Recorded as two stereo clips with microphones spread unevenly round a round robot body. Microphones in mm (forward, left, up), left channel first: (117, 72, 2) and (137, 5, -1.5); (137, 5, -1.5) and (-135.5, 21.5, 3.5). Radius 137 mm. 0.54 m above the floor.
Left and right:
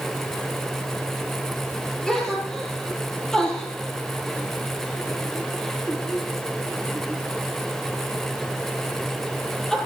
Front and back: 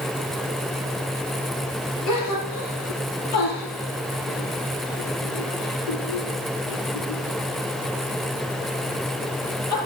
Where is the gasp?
25° left, 5.5 m.